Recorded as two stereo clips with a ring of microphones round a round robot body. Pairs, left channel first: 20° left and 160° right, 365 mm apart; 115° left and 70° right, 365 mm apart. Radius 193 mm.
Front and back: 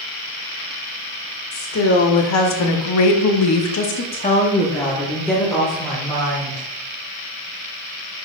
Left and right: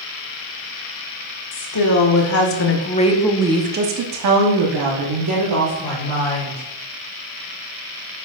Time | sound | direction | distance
1.5 | a woman speaking | 75° left | 1.9 m